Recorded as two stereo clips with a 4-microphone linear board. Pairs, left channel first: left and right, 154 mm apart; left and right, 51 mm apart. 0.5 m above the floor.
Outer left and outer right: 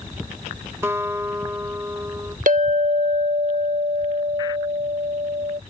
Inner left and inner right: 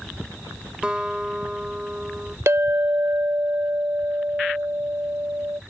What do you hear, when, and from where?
0.8 s a guitar: 20° right (ahead or behind)
2.5 s a clink: 65° right (ahead or behind)